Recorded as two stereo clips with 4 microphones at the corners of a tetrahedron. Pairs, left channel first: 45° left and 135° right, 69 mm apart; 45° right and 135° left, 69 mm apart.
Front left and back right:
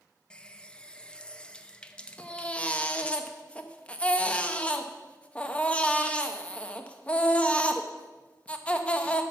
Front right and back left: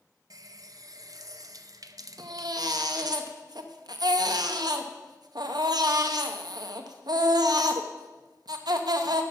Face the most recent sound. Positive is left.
turn(degrees=115)